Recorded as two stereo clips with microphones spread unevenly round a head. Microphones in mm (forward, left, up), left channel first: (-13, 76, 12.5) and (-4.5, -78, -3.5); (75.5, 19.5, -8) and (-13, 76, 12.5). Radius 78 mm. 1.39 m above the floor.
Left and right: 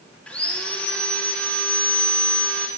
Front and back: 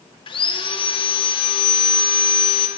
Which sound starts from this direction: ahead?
Sawing, at 0.3 s.